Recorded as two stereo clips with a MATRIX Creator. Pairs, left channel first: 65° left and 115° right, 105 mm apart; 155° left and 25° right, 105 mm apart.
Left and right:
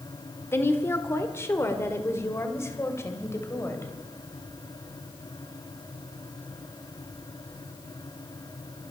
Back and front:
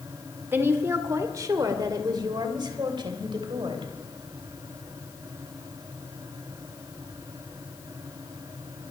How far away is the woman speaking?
About 1.4 m.